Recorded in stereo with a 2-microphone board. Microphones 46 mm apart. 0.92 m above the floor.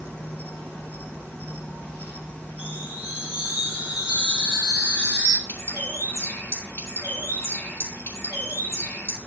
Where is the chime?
20° right (ahead or behind), 1.7 m.